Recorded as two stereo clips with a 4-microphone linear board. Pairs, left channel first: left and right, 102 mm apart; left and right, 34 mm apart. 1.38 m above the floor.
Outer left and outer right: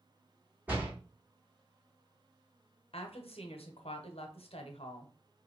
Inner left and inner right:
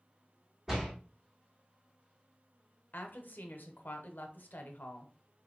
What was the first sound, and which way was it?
A door slam, 15° right (ahead or behind).